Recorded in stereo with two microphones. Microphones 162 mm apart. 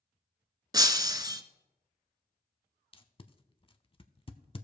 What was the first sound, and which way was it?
Breaking glass, 25° right (ahead or behind).